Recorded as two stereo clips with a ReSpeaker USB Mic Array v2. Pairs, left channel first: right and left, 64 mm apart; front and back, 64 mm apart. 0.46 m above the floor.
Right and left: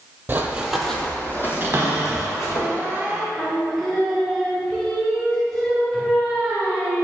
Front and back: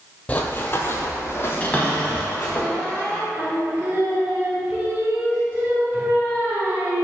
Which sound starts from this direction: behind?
Singing, at 3.4 s.